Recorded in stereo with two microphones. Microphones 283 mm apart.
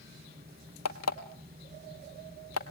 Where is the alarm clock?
65° left (ahead or behind), 1.3 m.